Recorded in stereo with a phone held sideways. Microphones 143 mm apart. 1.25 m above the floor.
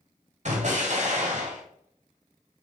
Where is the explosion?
55° right (ahead or behind), 1.6 m.